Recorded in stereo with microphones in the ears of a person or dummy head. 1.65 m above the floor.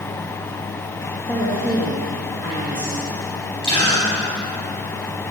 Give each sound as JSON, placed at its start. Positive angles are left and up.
{"t": 1.3, "sound": "a woman speaking", "side_deg": 20, "distance_m": 3.0}
{"t": 3.6, "sound": "a gasp", "side_deg": 25, "distance_m": 4.5}